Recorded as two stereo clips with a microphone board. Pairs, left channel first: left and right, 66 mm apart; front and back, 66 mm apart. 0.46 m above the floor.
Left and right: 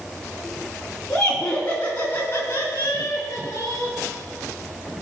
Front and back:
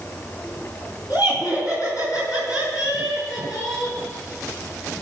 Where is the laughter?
10° left, 3.5 m; by 4.0 s 50° left, 5 m.